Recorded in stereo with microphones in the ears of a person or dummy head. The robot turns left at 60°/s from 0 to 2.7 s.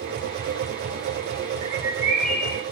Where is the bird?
145° right, 5 m; by 2.6 s 155° left, 5 m.